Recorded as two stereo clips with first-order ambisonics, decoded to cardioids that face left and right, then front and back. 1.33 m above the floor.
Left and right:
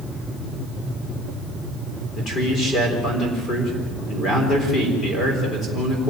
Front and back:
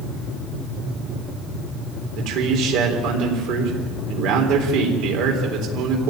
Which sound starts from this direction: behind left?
A man speaking, at 2.1 s.